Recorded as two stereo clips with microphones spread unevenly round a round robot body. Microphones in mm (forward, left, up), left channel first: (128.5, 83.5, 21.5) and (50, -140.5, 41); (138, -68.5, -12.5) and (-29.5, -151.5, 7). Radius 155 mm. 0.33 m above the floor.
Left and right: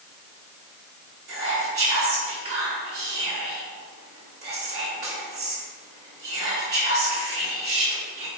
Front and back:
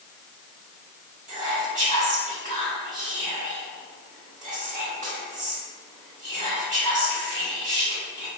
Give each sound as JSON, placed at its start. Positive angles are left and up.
{"t": 1.3, "sound": "whispering", "azimuth_deg": -135, "distance_m": 1.5}